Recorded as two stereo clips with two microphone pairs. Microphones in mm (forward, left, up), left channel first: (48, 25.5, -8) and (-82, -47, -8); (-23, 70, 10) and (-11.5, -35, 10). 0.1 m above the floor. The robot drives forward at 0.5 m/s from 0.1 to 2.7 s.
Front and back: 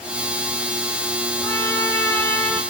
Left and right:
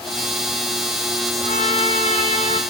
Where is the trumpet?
105° left, 5.5 m; by 2.6 s 110° left, 5.5 m.